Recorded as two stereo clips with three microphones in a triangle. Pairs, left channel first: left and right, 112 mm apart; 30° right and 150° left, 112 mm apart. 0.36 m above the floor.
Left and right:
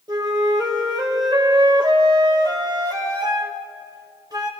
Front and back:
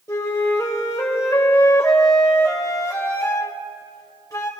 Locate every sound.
0.1 s a flute: 70° right, 1.6 m